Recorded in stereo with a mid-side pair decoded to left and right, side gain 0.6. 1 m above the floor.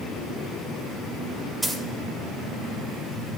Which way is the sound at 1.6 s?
15° right.